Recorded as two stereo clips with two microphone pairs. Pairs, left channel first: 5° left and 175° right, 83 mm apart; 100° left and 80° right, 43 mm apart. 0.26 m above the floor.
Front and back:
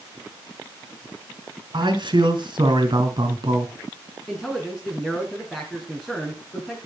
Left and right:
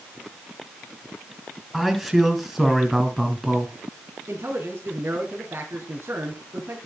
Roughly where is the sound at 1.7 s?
Behind.